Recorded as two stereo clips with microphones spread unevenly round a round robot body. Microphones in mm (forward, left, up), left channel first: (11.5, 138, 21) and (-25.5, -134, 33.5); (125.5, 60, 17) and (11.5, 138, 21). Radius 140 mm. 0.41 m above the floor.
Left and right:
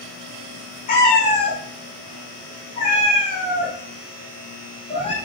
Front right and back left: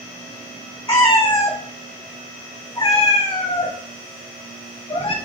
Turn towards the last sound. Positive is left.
turn(degrees=15)